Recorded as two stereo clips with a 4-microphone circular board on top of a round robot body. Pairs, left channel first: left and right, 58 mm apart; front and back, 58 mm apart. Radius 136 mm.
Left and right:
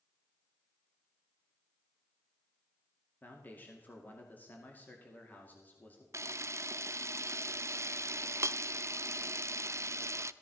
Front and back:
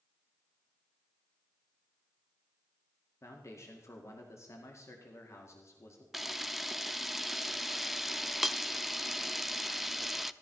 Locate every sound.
3.2 s a man speaking: 35° left, 2 m
6.1 s a camera shutter: 95° right, 0.7 m